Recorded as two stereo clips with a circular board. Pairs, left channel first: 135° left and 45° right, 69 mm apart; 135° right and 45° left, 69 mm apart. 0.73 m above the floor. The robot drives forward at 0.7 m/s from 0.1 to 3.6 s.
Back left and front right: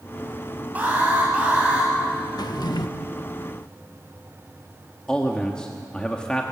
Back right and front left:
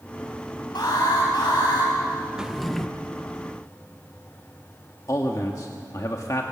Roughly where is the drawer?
Behind left.